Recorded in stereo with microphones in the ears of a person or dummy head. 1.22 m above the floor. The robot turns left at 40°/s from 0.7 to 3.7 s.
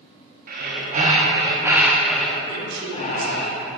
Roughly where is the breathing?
Behind right.